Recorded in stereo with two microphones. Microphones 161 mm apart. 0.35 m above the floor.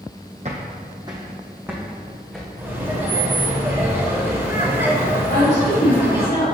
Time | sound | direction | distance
0.5 | footsteps | 45° right (ahead or behind) | 1.0 m
2.6 | laughter | 15° right (ahead or behind) | 1.6 m
5.3 | a woman speaking | 55° left (ahead or behind) | 1.9 m